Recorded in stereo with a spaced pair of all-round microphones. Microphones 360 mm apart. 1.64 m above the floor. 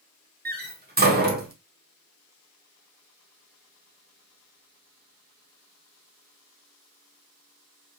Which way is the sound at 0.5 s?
25° right (ahead or behind).